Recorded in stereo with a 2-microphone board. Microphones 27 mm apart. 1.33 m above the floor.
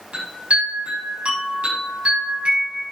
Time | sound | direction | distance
0.1 | a chime | 50° right (ahead or behind) | 6.5 m